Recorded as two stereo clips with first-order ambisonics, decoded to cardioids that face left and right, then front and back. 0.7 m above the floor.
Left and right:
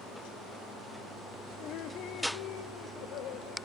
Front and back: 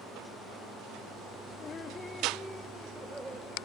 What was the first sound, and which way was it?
Laughter, 55° left.